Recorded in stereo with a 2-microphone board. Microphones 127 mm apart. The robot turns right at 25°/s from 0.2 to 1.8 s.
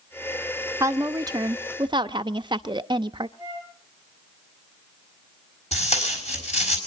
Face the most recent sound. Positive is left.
turn(degrees=60)  # may be behind; listen again after turning